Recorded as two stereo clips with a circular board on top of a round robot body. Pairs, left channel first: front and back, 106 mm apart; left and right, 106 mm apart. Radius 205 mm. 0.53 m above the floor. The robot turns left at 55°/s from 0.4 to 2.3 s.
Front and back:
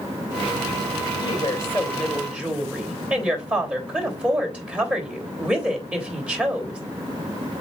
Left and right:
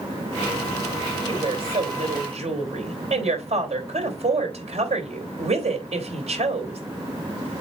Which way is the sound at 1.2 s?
40° right.